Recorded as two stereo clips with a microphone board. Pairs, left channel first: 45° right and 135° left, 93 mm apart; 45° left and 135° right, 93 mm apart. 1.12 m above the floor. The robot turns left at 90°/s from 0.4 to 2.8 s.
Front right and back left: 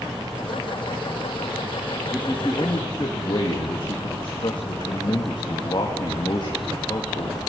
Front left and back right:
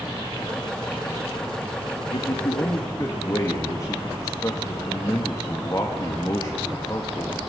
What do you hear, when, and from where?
2.1 s a man speaking: 50° left, 2 m; by 7.4 s 10° right, 2 m